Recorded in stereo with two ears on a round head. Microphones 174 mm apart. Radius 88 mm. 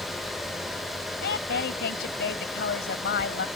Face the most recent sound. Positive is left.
turn(degrees=60)  # may be behind; listen again after turning